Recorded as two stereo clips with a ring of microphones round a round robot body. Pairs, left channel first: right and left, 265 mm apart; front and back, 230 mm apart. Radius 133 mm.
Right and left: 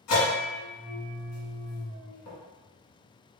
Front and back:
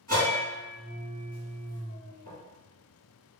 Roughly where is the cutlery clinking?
I don't hear cutlery clinking.